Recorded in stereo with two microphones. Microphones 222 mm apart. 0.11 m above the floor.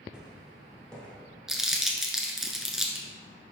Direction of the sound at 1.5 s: Centre (ahead or behind).